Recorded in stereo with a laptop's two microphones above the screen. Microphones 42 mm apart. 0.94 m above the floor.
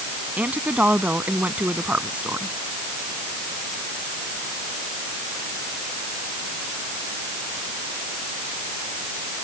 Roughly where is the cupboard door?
I don't hear a cupboard door.